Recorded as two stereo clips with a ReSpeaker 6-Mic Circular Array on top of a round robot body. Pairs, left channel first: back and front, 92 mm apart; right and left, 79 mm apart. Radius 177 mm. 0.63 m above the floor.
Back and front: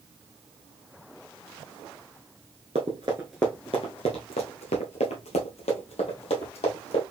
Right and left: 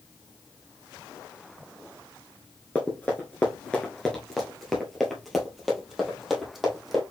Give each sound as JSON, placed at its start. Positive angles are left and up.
{"t": 2.8, "sound": "running footsteps", "azimuth_deg": -10, "distance_m": 0.6}